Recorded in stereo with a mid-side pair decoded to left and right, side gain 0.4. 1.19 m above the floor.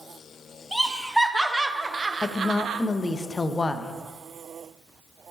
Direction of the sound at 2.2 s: 25° left.